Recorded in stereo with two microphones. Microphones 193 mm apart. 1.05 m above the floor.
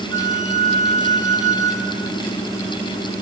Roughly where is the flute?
Centre.